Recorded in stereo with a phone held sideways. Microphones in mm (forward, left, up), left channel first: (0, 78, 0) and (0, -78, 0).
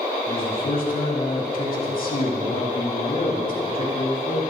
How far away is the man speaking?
About 4 m.